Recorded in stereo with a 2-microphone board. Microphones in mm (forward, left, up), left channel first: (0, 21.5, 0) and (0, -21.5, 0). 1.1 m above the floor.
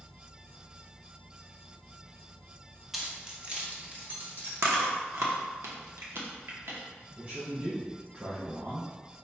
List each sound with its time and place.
2.9 s keys jangling: 5° right (ahead or behind), 0.7 m; by 4.5 s 55° right (ahead or behind), 1.3 m
4.6 s chewing: 70° right (ahead or behind), 0.8 m
7.2 s a man speaking: 45° right (ahead or behind), 1.4 m